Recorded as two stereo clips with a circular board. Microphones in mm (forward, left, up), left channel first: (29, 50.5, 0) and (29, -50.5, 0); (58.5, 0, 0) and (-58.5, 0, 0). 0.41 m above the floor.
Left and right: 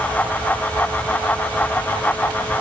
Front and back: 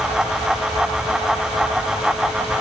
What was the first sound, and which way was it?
Only background noise.